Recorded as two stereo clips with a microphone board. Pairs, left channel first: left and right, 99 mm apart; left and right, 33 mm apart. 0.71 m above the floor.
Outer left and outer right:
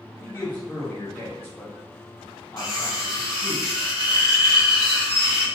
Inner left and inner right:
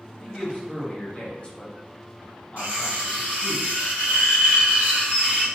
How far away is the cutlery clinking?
About 1.2 m.